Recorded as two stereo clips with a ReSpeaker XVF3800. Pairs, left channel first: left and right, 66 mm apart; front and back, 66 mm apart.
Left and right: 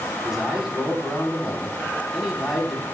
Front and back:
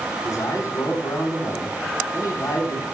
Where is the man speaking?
5° right, 1.7 m.